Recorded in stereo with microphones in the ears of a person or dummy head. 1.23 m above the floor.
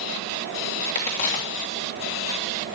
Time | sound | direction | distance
0.9 | a crack | 45° left (ahead or behind) | 2.5 m